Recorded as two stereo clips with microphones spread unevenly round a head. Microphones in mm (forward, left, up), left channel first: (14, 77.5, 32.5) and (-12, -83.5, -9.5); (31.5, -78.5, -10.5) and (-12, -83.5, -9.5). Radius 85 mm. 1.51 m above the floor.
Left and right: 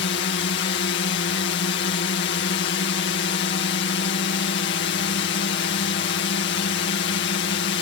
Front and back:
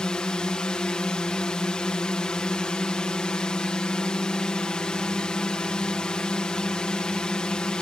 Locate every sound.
0.0 s a drone: 80° left